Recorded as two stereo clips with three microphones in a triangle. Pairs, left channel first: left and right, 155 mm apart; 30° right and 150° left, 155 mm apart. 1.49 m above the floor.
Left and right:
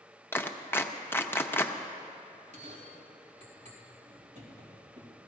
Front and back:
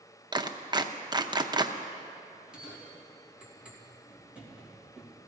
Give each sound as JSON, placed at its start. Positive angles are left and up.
{"t": 0.3, "sound": "a clap", "azimuth_deg": 150, "distance_m": 0.7}
{"t": 2.3, "sound": "a bell", "azimuth_deg": -125, "distance_m": 2.5}